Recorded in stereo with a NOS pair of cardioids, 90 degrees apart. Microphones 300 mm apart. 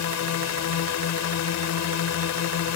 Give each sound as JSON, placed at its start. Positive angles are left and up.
{"t": 0.0, "sound": "a drone", "azimuth_deg": 65}